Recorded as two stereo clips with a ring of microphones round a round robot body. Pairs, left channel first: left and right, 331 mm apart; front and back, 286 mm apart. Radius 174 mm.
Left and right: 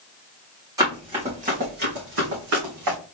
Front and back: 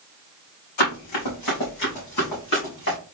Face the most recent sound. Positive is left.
turn(degrees=-50)